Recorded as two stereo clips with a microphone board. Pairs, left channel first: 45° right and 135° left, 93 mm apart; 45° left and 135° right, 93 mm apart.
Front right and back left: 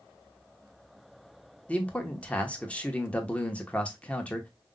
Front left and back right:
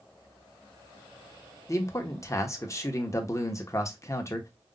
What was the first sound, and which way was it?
A man speaking, 20° left.